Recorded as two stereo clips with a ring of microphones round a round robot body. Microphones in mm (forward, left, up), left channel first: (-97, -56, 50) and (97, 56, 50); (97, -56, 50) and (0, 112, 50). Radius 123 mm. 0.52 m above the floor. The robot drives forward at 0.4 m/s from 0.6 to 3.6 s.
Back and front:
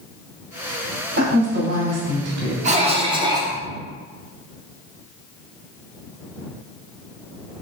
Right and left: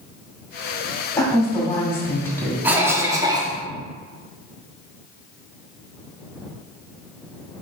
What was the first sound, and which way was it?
A woman speaking, 10° left.